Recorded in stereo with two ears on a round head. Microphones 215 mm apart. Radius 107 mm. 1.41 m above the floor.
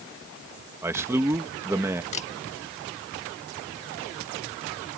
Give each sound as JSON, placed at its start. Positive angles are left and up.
{"t": 0.8, "sound": "a man speaking", "side_deg": -10}
{"t": 2.1, "sound": "a camera shutter", "side_deg": 30}